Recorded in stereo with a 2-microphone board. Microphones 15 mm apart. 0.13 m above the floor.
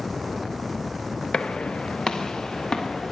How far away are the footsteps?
About 1.0 m.